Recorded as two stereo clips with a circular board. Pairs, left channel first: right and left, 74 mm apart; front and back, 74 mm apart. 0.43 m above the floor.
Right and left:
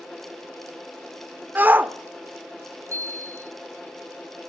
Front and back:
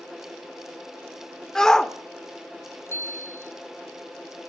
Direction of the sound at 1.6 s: 70° left.